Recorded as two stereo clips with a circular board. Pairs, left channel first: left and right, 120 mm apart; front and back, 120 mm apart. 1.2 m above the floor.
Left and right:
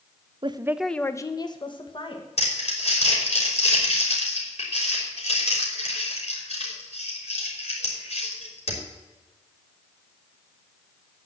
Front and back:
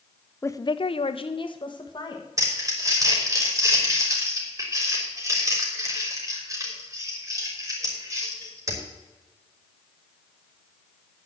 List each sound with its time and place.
0.4 s a woman speaking: 65° right, 0.5 m; by 2.3 s 50° left, 1.7 m
2.4 s crumpling: 115° left, 3.5 m